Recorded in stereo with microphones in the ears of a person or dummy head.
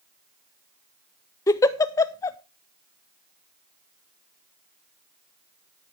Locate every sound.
1.5 s a giggle: 15° left (ahead or behind), 0.6 m